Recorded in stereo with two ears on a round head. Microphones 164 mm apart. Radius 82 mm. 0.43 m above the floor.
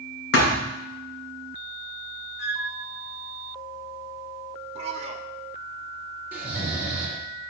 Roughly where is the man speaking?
Right.